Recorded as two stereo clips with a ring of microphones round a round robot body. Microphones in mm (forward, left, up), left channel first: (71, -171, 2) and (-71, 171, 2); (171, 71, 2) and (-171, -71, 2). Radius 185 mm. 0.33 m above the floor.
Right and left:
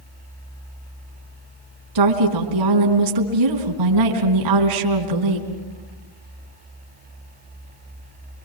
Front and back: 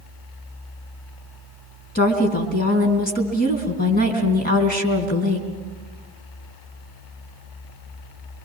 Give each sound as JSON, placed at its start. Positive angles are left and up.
{"t": 1.9, "sound": "a woman speaking", "azimuth_deg": 90, "distance_m": 3.5}